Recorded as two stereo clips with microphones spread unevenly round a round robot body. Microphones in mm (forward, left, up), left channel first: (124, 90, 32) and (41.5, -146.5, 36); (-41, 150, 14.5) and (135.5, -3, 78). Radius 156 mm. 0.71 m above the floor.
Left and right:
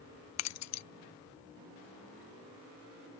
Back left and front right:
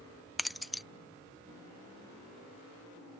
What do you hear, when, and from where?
0.4 s keys jangling: 55° left